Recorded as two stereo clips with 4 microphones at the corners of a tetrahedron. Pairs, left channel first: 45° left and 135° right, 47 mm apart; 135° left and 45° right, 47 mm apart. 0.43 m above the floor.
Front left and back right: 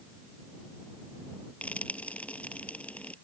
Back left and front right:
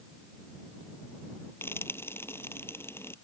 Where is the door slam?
No door slam in this recording.